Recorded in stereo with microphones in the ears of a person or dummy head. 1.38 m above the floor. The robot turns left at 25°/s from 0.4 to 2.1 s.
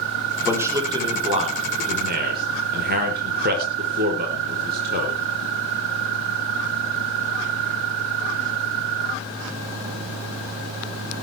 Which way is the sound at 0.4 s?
10° right (ahead or behind).